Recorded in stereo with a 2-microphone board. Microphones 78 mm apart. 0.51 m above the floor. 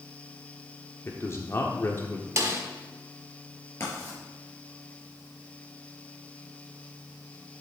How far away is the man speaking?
About 1.1 m.